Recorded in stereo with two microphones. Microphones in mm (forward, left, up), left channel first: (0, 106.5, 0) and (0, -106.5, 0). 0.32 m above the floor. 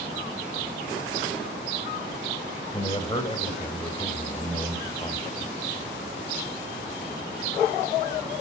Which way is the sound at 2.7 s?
25° left (ahead or behind).